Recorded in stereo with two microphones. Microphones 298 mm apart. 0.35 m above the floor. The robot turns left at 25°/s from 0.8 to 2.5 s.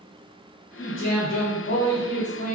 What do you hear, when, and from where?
0.8 s a man speaking: 95° left, 1.1 m; by 2.5 s 50° left, 1.1 m